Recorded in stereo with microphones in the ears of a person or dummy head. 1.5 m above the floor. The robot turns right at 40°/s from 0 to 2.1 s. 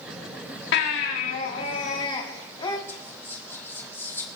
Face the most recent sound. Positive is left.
turn(degrees=10)  # may be behind; listen again after turning